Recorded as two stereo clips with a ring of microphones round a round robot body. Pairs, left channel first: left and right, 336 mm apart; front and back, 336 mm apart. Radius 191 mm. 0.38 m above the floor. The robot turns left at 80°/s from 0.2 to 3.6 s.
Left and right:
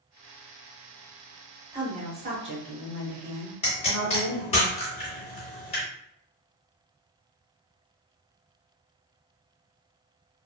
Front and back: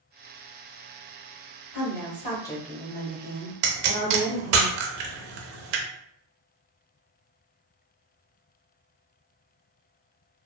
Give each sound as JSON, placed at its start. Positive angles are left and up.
{"t": 1.7, "sound": "a woman speaking", "azimuth_deg": -20, "distance_m": 1.1}
{"t": 3.6, "sound": "a pop", "azimuth_deg": 165, "distance_m": 0.6}